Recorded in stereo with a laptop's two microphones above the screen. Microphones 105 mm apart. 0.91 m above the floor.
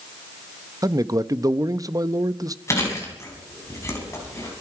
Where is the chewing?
30° left (ahead or behind), 5 m.